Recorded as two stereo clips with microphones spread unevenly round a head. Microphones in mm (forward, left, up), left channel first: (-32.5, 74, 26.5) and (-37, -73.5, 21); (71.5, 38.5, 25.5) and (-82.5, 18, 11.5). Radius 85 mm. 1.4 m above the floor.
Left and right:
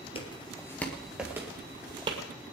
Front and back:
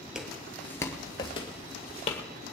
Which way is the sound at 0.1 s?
95° left.